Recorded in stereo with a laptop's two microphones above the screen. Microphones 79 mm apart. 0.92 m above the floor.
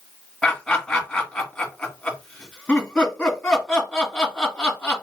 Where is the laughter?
5° left (ahead or behind), 2 m.